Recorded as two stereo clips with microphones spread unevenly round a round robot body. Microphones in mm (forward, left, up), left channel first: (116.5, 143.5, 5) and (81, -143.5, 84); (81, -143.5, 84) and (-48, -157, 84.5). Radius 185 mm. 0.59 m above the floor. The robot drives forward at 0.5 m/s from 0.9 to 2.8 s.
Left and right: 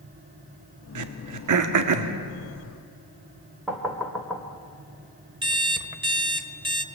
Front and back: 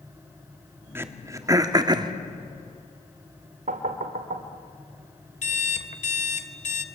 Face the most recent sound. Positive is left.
turn(degrees=-20)